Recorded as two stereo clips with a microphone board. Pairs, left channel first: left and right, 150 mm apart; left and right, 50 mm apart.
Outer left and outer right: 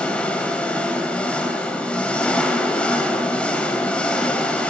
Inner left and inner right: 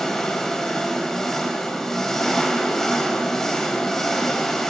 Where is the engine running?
5° left (ahead or behind), 1.6 m.